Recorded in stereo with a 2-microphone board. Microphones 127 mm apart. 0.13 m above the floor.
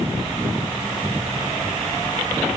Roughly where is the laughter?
I don't hear laughter.